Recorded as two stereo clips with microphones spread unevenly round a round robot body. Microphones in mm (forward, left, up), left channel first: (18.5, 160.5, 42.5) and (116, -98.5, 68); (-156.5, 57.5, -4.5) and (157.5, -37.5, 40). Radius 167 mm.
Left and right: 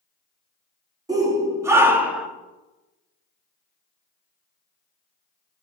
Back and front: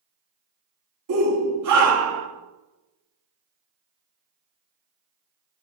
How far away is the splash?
I don't hear a splash.